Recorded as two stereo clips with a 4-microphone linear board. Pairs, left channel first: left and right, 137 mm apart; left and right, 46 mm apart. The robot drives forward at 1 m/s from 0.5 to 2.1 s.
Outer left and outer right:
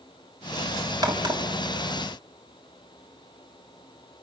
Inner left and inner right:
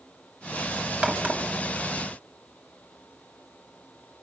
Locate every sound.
1.0 s a crack: 30° right (ahead or behind), 2.5 m; by 1.4 s 35° right (ahead or behind), 2 m